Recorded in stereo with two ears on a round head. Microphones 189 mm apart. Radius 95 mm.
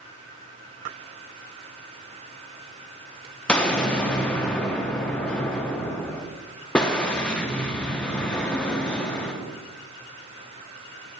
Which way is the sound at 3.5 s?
5° left (ahead or behind).